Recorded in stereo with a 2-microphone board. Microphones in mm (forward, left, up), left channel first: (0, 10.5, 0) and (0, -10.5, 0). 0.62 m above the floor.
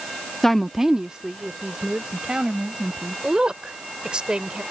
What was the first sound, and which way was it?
A woman speaking, 25° left (ahead or behind).